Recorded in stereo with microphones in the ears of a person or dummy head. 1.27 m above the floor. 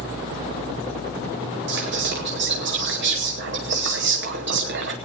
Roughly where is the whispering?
Right.